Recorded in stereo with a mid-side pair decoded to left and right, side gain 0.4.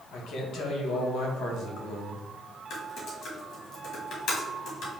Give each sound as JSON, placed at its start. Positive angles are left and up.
{"t": 0.1, "sound": "a man speaking", "azimuth_deg": 70, "distance_m": 1.5}
{"t": 2.7, "sound": "typing on a keyboard", "azimuth_deg": 70, "distance_m": 1.9}